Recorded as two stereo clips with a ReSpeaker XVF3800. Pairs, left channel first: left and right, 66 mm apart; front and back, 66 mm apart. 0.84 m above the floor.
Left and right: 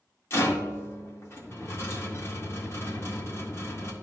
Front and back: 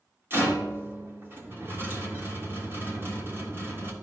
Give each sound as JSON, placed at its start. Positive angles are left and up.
{"t": 0.3, "sound": "a rattle", "azimuth_deg": 130, "distance_m": 1.6}